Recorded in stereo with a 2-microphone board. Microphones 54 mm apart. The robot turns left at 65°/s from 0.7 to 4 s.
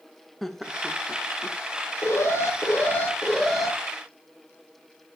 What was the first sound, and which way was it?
Laughter, centre (ahead or behind).